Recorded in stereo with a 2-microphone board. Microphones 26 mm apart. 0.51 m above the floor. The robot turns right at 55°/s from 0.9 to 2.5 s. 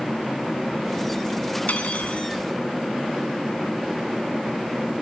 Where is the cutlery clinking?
80° left, 3 m; by 2.3 s 115° left, 3 m.